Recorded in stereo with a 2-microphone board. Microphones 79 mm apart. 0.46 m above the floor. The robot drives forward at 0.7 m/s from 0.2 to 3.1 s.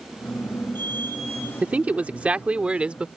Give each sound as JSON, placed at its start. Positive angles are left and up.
{"t": 1.6, "sound": "a man speaking", "side_deg": -20}